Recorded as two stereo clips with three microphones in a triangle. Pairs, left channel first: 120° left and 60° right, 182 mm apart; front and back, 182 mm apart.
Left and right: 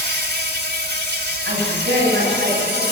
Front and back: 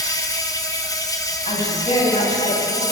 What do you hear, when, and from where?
0.0 s an insect: 70° right, 2 m
1.4 s a woman speaking: 55° right, 8 m